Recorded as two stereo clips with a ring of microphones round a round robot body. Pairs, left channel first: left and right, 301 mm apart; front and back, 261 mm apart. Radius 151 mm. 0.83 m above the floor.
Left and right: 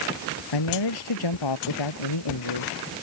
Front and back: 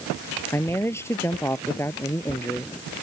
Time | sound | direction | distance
0.5 | a man speaking | 80° left | ?